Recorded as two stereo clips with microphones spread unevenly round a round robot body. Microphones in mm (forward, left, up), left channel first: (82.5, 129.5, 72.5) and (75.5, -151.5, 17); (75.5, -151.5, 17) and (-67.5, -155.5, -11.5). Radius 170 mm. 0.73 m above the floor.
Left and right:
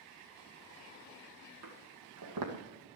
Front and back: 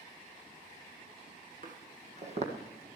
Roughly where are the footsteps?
Behind right.